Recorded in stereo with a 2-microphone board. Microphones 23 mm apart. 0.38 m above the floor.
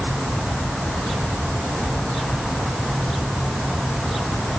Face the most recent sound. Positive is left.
No sound to turn to.